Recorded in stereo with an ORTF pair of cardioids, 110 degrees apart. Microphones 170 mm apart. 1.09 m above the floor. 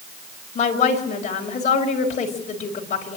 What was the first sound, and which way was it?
A woman speaking, 45° left.